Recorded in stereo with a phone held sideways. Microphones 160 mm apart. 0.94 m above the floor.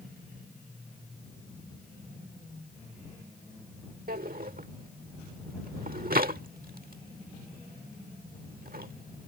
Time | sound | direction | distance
4.1 | a drawer | 65° right (ahead or behind) | ?